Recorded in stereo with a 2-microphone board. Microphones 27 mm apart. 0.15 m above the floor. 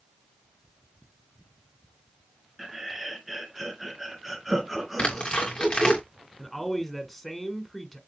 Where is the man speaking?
5° left (ahead or behind), 1.2 m.